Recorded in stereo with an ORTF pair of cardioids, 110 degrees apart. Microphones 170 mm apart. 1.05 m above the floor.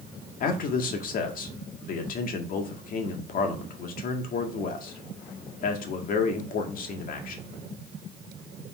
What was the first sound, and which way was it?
A man speaking, 60° left.